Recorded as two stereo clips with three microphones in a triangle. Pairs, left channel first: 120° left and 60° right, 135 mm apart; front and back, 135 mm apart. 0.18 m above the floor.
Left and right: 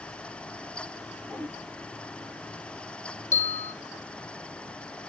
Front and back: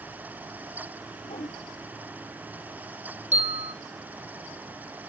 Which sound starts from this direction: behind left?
A bell, at 3.3 s.